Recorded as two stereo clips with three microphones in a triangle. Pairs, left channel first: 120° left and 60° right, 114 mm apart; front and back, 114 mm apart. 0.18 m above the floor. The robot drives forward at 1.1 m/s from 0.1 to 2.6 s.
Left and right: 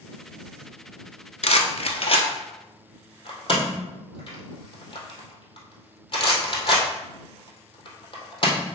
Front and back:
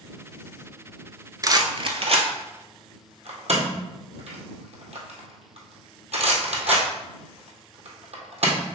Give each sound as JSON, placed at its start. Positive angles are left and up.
{"t": 1.4, "sound": "a rattle", "azimuth_deg": 125, "distance_m": 0.7}